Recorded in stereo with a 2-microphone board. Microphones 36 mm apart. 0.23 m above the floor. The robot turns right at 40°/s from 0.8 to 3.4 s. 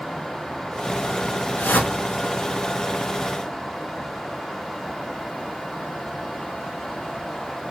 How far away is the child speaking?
I don't hear a child speaking.